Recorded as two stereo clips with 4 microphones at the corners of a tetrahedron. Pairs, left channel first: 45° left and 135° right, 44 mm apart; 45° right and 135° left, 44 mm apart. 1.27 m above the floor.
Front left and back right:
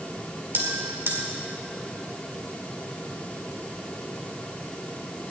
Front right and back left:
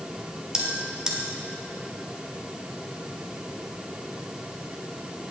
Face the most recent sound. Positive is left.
turn(degrees=-155)